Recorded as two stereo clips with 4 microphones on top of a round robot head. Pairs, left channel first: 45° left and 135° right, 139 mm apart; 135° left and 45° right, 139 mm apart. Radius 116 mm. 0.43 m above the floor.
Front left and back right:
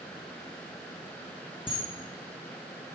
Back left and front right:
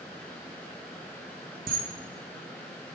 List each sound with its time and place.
1.7 s a camera shutter: 15° right, 0.6 m